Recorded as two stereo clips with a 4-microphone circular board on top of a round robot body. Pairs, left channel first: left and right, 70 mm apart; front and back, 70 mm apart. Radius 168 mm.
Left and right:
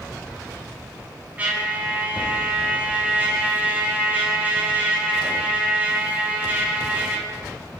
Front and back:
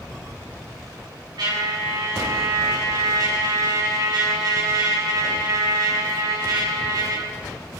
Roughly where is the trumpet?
Behind.